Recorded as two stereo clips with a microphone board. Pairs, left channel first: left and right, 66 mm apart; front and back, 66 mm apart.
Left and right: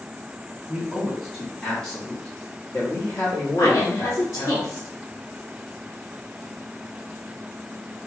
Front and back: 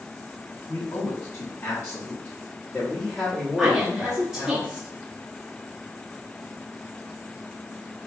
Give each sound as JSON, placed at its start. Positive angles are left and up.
{"t": 0.7, "sound": "a man speaking", "azimuth_deg": -15, "distance_m": 1.4}
{"t": 3.6, "sound": "a woman speaking", "azimuth_deg": 105, "distance_m": 0.9}